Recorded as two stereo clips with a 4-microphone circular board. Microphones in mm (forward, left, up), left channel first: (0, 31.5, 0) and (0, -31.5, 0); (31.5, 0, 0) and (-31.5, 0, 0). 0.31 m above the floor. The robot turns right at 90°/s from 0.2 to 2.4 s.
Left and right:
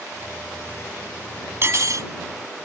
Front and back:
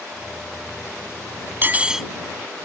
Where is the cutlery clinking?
130° right; by 2.1 s 90° right.